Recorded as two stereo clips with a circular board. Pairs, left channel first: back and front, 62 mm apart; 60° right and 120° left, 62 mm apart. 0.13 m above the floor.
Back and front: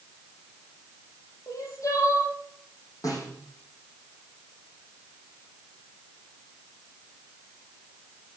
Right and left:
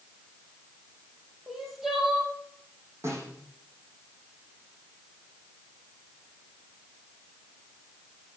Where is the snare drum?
165° left, 7 m.